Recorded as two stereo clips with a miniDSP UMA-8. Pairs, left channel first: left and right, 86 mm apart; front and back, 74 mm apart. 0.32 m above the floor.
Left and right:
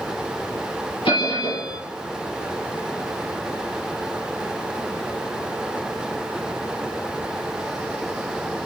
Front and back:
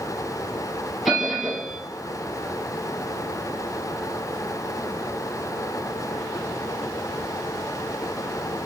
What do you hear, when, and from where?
1.1 s a bell: 90° left, 3.5 m